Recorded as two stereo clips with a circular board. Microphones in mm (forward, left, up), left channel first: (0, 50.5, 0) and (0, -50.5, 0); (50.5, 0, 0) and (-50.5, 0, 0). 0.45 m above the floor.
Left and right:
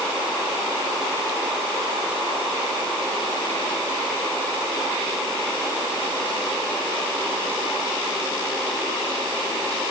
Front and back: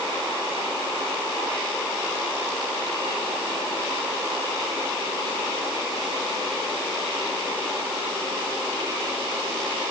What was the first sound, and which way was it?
Only background noise.